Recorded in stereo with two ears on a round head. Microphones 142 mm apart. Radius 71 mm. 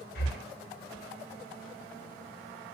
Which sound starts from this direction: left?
Breathing, at 0.1 s.